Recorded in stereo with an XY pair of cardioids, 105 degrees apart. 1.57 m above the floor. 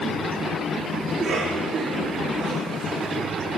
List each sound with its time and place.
1.1 s a cough: 40° right, 3 m